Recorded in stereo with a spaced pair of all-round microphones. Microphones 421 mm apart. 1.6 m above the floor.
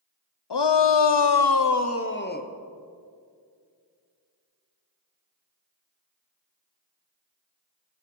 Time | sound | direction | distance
0.5 | a shout | 70° left (ahead or behind) | 0.7 m